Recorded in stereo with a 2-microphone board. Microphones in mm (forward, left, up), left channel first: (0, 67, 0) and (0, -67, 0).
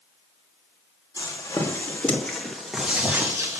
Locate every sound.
1.2 s footsteps: 30° left (ahead or behind), 2.5 m; by 3.6 s 25° right (ahead or behind), 1.9 m